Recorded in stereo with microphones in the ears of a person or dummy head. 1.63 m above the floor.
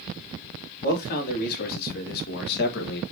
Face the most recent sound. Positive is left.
turn(degrees=60)  # may be behind; listen again after turning